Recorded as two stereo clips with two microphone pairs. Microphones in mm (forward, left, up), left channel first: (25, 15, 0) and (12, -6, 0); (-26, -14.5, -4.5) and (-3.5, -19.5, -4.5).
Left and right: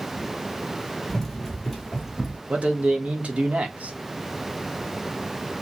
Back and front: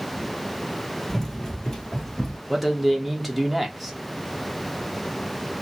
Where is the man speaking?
100° right, 1.2 m.